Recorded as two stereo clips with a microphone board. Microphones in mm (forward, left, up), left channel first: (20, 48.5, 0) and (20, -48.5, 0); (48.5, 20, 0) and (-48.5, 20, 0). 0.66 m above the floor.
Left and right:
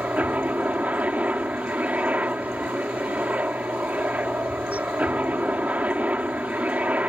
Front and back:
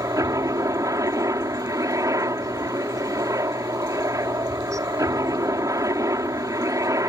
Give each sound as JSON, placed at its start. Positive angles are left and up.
{"t": 0.0, "sound": "a helicopter", "azimuth_deg": -155}